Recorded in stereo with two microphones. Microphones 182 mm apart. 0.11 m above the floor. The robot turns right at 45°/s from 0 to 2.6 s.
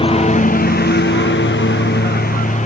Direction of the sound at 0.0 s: 30° left (ahead or behind).